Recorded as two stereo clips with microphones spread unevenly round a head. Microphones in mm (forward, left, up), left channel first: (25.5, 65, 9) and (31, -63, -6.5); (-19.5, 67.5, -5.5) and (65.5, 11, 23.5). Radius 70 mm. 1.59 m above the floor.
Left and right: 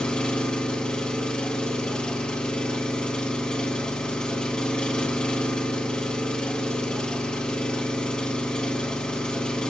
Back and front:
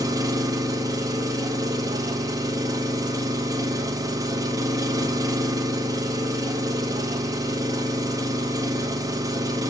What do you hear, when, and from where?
0.0 s an engine running: 10° left, 1.9 m